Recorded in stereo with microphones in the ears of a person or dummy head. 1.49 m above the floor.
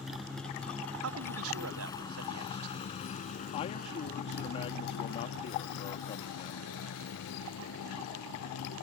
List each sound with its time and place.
0.0 s a motorcycle: centre (ahead or behind); by 8.8 s 85° left
1.0 s a man speaking: 80° right
3.5 s a man speaking: 35° left (ahead or behind)